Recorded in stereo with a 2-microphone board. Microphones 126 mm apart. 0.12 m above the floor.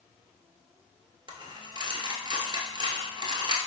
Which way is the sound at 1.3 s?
35° right (ahead or behind).